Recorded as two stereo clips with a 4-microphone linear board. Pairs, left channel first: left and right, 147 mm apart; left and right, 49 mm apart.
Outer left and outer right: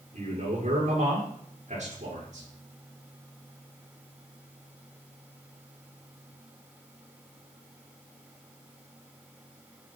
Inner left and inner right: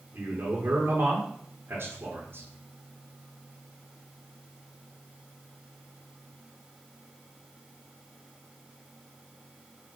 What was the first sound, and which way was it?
A man speaking, 55° right (ahead or behind).